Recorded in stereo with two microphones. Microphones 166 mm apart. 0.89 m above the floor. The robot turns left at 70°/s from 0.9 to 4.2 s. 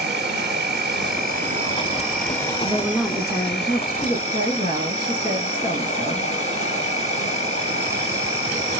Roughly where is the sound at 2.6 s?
Behind.